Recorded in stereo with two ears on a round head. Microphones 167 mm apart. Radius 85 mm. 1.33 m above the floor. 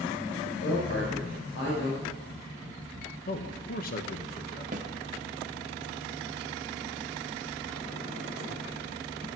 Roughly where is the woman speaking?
Left.